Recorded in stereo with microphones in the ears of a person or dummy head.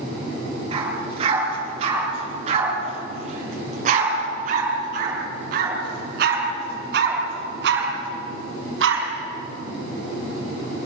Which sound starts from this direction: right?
A dog barking, at 0.7 s.